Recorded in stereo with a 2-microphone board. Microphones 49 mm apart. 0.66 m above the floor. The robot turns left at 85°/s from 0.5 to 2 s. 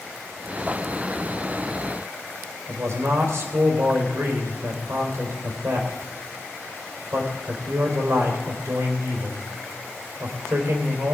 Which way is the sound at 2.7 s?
65° right (ahead or behind).